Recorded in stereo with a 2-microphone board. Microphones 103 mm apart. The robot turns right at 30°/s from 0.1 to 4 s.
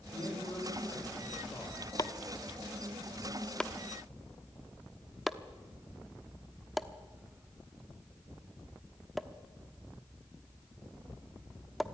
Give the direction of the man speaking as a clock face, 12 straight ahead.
8 o'clock.